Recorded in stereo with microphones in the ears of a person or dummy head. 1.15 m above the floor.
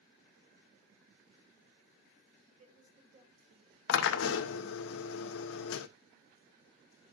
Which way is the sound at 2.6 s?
35° right (ahead or behind).